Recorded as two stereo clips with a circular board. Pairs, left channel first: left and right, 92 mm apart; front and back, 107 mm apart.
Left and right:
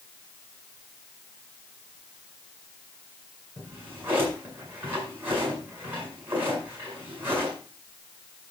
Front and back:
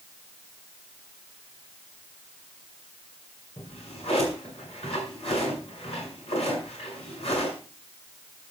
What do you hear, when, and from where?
3.6 s a drawer: 25° right, 6.5 m